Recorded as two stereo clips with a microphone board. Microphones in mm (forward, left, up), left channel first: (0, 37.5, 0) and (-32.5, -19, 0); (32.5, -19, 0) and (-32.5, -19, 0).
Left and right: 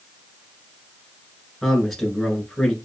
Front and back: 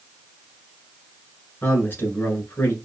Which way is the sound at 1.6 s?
25° right.